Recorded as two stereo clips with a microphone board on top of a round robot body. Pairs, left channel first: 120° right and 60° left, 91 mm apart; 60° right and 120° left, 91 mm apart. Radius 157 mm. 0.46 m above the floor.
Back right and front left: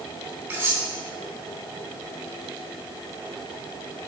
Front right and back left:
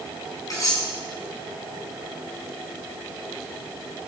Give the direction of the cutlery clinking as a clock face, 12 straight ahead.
12 o'clock.